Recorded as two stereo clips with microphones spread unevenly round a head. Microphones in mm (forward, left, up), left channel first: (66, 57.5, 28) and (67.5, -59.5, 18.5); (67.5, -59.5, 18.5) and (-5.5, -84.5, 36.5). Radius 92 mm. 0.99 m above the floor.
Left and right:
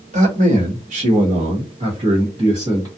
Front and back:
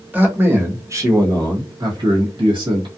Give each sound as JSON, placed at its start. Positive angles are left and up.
{"t": 0.1, "sound": "a man speaking", "azimuth_deg": -90, "distance_m": 1.3}